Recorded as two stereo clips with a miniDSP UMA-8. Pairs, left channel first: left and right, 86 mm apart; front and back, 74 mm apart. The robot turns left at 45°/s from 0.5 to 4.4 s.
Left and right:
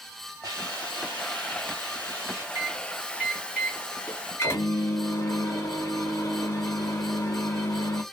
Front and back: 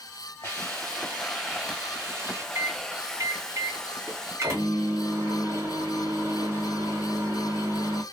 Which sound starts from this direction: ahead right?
A hiss, at 0.4 s.